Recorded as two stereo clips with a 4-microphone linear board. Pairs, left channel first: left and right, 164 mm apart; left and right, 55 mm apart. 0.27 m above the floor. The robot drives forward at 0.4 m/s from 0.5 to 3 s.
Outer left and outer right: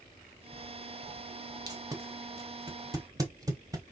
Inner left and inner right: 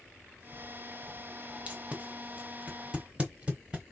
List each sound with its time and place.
1.7 s tape being pulled: 25° right (ahead or behind), 1.0 m; by 3.9 s 20° right (ahead or behind), 1.0 m